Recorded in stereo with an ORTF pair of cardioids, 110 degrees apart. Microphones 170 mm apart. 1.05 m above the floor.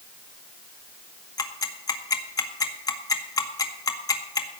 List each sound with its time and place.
1.4 s ticking: 20° left, 1.8 m